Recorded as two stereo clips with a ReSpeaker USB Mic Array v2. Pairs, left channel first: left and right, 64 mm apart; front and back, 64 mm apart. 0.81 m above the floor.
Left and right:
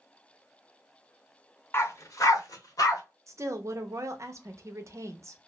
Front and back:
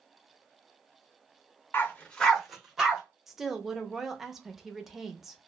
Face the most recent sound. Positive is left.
turn(degrees=-95)